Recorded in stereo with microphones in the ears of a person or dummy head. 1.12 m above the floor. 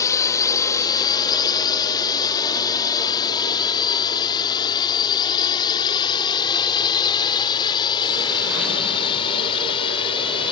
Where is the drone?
15° left (ahead or behind); by 10.5 s 25° left (ahead or behind).